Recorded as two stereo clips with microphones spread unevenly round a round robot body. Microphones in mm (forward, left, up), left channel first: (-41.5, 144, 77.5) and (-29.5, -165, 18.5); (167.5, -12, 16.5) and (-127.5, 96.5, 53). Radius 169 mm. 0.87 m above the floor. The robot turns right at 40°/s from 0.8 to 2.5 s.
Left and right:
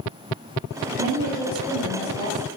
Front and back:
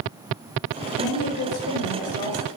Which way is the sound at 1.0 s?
45° right.